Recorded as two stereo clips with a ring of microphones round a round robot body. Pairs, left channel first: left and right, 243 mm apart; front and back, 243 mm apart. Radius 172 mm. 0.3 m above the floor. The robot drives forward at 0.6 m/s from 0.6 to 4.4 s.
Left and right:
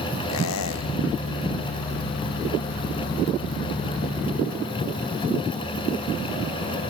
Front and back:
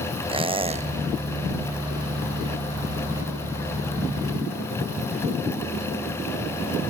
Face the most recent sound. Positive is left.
turn(degrees=160)